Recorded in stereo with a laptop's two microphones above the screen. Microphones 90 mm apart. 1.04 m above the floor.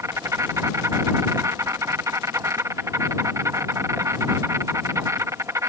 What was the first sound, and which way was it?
An insect, 35° right (ahead or behind).